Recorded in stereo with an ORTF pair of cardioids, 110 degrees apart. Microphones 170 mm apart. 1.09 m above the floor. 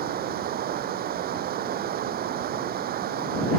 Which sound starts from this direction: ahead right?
Running water, at 0.0 s.